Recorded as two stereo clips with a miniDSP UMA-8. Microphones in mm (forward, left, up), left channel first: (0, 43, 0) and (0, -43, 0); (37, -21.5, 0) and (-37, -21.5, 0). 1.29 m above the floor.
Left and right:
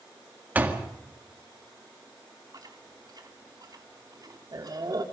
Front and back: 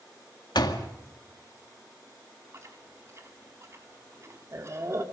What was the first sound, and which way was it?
A door slam, 20° right.